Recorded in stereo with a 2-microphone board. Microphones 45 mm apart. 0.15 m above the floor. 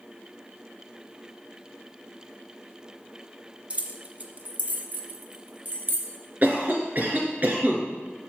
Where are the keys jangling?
25° right (ahead or behind), 0.9 m; by 6.1 s 35° right (ahead or behind), 1.4 m.